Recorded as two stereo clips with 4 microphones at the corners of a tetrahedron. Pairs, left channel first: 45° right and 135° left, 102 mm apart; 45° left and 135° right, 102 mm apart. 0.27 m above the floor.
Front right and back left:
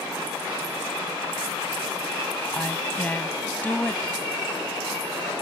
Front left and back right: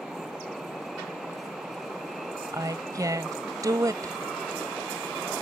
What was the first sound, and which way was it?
A woman speaking, 110° right.